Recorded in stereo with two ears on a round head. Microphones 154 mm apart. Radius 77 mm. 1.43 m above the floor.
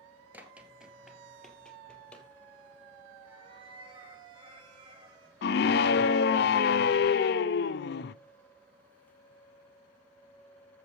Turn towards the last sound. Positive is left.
turn(degrees=65)  # may be behind; listen again after turning